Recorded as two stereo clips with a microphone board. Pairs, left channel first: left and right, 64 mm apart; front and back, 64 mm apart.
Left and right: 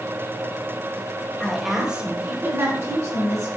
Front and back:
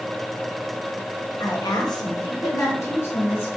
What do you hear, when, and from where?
1.4 s a woman speaking: 10° left, 1.1 m; by 3.5 s 55° right, 2 m